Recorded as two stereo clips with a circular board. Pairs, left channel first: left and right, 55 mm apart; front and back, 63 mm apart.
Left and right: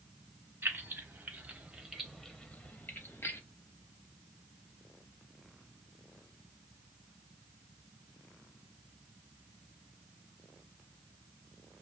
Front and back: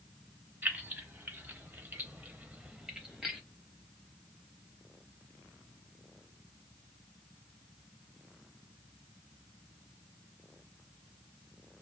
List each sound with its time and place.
0.6 s keys jangling: 125° right, 1.1 m; by 3.4 s 95° left, 0.9 m